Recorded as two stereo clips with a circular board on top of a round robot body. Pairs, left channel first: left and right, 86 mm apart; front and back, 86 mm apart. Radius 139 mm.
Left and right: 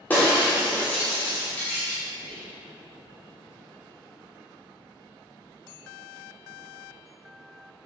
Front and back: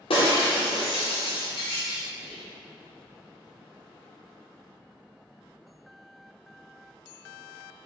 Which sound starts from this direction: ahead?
Breaking glass, at 0.1 s.